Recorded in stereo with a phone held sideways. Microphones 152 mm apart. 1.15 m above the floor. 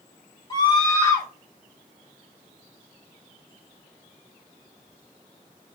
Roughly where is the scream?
Left.